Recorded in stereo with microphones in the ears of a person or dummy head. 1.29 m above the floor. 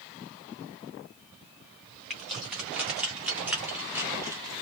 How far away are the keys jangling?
About 2.5 m.